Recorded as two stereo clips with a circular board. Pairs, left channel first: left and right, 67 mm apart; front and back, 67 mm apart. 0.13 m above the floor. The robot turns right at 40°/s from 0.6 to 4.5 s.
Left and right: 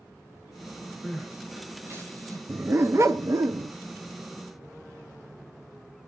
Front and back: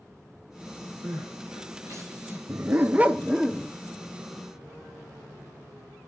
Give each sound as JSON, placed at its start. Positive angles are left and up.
{"t": 1.0, "sound": "crying", "azimuth_deg": -175, "distance_m": 4.0}
{"t": 2.5, "sound": "a dog barking", "azimuth_deg": -140, "distance_m": 0.6}